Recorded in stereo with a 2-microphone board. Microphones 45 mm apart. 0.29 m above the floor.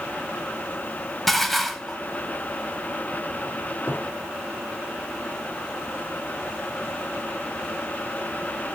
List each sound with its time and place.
1.3 s dishes clattering: centre (ahead or behind), 0.9 m
3.9 s a cupboard door: 60° left (ahead or behind), 5.5 m